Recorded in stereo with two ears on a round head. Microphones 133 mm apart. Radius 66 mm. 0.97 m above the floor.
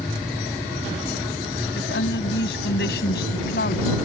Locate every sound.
1.8 s a woman speaking: 85° left; by 4.0 s 65° left (ahead or behind)